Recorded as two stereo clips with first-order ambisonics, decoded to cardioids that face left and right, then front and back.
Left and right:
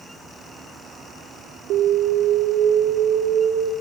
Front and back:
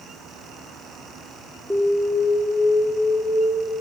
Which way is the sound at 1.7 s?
100° right.